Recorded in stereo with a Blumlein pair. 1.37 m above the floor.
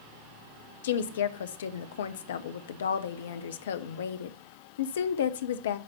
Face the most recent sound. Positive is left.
turn(degrees=60)